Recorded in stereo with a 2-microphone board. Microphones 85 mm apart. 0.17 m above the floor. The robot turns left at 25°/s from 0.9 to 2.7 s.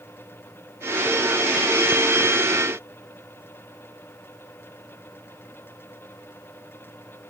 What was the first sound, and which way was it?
Only background noise.